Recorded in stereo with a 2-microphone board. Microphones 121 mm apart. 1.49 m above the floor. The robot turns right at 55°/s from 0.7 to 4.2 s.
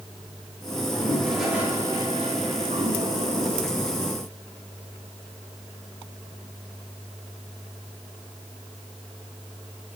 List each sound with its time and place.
0.8 s a toilet flushing: 145° left, 4.5 m; by 3.7 s 55° right, 4.5 m